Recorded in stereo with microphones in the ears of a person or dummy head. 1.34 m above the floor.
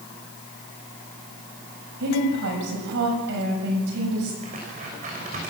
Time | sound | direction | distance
2.0 | a woman speaking | 60° right (ahead or behind) | 7 m
4.4 | tearing paper | 40° right (ahead or behind) | 6.5 m